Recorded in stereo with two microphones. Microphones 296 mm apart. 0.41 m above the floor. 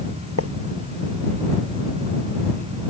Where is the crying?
I don't hear crying.